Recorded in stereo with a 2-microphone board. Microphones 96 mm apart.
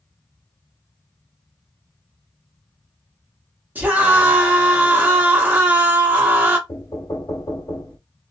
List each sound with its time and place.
3.8 s a scream: 20° right (ahead or behind), 1.0 m
6.7 s knocking: 40° left (ahead or behind), 0.8 m